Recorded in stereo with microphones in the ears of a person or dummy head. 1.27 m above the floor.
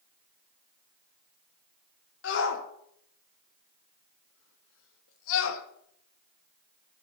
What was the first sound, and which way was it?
A shout, 75° left (ahead or behind).